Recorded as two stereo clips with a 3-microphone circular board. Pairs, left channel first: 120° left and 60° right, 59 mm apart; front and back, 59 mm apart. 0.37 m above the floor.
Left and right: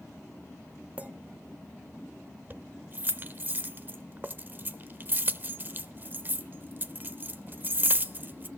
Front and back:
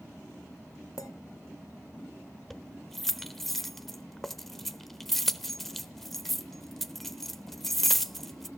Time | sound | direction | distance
1.0 | a clink | 5° left | 1.1 m
2.5 | keys jangling | 80° right | 0.7 m